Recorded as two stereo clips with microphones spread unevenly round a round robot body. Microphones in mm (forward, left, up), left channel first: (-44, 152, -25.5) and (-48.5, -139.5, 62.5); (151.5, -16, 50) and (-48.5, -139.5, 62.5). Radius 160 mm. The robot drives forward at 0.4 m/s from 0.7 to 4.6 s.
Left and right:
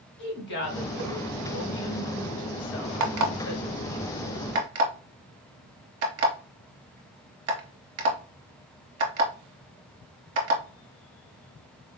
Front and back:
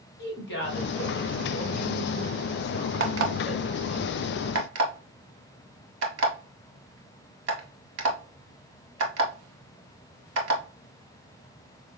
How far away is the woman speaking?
About 1.5 m.